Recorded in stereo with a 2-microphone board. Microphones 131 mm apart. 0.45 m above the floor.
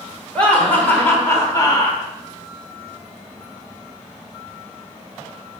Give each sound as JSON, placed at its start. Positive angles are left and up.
{"t": 0.3, "sound": "laughter", "side_deg": 10, "distance_m": 2.0}